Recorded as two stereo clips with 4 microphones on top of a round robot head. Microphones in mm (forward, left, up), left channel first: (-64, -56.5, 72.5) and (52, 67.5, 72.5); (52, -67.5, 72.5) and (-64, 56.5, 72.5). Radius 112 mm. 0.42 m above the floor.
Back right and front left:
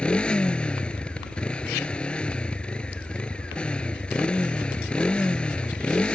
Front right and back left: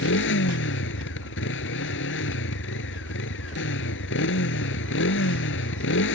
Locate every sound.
0.0 s a motorcycle: 50° right